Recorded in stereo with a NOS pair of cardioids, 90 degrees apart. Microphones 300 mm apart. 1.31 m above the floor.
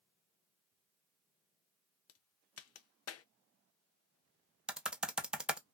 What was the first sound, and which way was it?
A crack, 55° left.